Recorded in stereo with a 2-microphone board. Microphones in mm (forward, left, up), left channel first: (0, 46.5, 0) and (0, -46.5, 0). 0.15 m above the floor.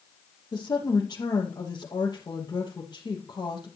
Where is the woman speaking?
50° left (ahead or behind), 4 m.